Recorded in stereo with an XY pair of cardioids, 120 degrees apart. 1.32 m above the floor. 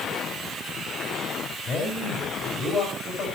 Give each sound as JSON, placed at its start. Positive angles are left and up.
{"t": 1.6, "sound": "a man speaking", "azimuth_deg": 45, "distance_m": 6.0}